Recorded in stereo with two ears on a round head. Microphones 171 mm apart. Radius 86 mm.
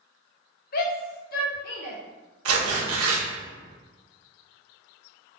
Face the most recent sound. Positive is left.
turn(degrees=-80)